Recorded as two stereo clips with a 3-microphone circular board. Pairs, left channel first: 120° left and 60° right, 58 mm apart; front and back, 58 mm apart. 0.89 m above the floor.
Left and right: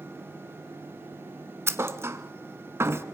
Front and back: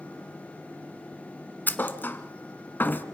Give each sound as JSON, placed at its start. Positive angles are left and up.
{"t": 1.7, "sound": "a thud", "azimuth_deg": -45, "distance_m": 1.1}